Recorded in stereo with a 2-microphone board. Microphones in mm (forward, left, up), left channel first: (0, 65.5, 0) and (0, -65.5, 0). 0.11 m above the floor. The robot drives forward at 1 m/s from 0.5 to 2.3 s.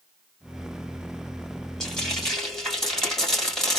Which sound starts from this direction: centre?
Frying, at 1.8 s.